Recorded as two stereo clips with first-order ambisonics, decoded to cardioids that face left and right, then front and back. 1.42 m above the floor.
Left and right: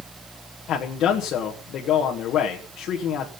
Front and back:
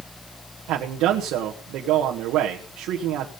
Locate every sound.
0.7 s a man speaking: 140° left, 1.4 m